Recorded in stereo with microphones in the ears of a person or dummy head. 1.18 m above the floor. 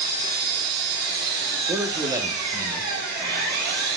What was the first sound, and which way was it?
An engine running, 55° right (ahead or behind).